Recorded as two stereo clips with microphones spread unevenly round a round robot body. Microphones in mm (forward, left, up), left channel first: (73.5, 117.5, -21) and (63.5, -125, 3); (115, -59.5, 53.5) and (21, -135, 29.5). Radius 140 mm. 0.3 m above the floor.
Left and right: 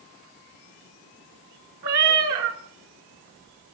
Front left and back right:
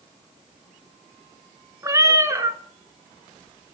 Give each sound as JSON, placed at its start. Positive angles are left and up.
{"t": 1.8, "sound": "a cat meowing", "azimuth_deg": -70, "distance_m": 0.7}